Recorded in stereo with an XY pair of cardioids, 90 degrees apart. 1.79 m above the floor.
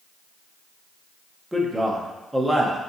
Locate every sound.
1.5 s a man speaking: 10° right, 1.1 m